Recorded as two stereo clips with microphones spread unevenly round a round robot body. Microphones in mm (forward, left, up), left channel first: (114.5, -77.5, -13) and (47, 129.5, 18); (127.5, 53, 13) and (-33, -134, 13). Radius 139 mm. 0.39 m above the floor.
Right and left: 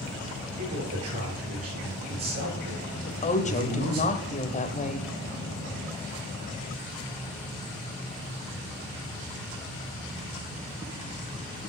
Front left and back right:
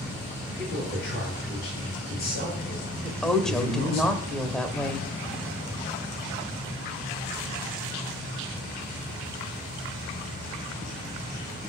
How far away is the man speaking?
About 8 m.